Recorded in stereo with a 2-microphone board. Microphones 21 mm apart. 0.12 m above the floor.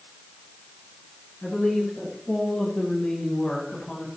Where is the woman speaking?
45° left (ahead or behind), 9 m; by 4.1 s 50° left (ahead or behind), 8 m.